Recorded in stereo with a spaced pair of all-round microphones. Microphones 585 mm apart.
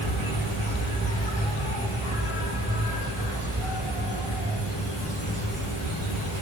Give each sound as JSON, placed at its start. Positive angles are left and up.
{"t": 0.0, "sound": "an insect", "side_deg": 60, "distance_m": 3.0}